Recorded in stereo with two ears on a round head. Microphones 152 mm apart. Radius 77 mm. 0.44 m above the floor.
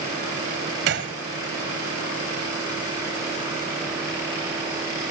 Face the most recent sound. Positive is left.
turn(degrees=-65)  # may be behind; listen again after turning